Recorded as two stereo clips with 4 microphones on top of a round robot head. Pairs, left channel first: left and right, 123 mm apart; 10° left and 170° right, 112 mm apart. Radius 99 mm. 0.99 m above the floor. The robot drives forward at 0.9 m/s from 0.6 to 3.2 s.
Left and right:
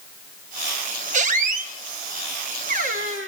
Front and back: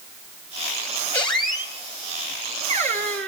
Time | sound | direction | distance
1.1 | a squeak | 65° right | 1.5 m